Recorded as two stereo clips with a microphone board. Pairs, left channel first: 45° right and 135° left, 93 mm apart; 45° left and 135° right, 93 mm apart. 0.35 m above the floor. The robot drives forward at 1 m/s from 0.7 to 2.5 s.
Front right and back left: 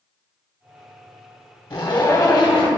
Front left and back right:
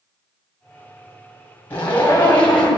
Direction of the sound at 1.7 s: 20° right.